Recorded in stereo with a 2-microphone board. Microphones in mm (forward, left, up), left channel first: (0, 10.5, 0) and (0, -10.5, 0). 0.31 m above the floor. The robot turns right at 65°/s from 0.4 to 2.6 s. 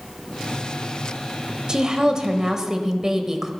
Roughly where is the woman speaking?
Right.